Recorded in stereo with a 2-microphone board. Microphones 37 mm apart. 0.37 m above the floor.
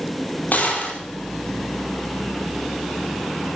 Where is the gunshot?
50° left (ahead or behind), 4 m.